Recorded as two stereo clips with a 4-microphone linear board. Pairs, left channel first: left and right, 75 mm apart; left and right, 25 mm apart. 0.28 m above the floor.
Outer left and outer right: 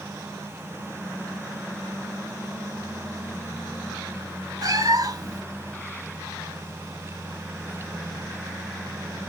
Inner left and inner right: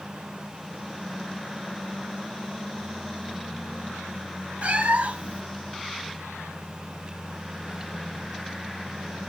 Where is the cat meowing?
55° right (ahead or behind), 0.6 m.